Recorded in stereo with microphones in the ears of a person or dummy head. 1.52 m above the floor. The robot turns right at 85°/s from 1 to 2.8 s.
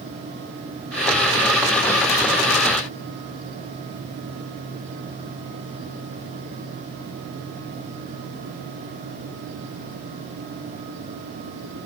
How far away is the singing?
No singing in this recording.